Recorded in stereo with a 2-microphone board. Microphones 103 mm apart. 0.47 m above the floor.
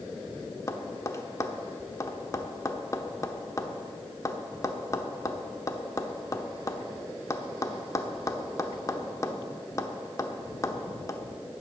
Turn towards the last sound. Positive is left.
turn(degrees=30)  # may be behind; listen again after turning